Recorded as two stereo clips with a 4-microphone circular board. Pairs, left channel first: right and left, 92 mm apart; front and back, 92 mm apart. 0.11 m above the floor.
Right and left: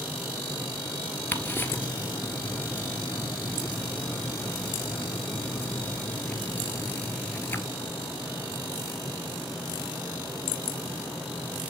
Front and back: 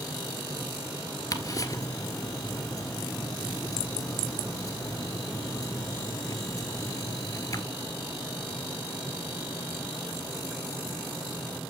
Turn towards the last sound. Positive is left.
turn(degrees=-30)